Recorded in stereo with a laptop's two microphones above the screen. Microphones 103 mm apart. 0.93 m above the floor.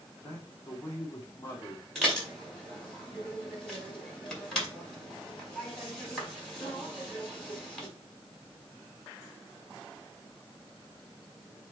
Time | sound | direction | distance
0.2 | a man speaking | 25° left (ahead or behind) | 3 m
1.9 | dishes clattering | 5° left (ahead or behind) | 4.5 m